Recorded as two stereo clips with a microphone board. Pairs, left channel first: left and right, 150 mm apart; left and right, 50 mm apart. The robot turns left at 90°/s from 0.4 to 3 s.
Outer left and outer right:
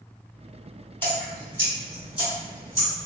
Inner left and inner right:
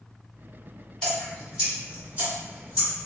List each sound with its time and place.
1.0 s dripping: 15° left (ahead or behind), 1.8 m; by 3.1 s 15° right (ahead or behind), 1.8 m